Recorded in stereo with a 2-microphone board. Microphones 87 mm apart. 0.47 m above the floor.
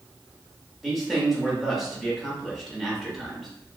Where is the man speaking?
Centre (ahead or behind), 1.1 m.